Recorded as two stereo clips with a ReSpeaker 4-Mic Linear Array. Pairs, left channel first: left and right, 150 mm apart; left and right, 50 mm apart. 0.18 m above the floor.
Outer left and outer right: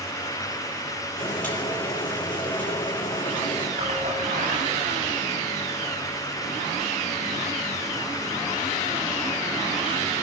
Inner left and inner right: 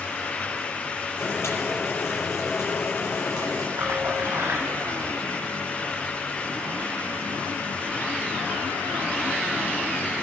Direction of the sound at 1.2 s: 70° left (ahead or behind).